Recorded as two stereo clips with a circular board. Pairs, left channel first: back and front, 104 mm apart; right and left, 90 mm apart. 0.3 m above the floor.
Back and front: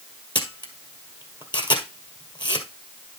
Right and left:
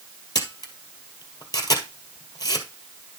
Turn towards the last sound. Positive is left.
turn(degrees=-140)